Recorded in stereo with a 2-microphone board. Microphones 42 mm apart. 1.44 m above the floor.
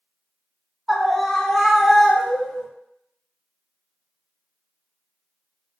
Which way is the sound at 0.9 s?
Centre (ahead or behind).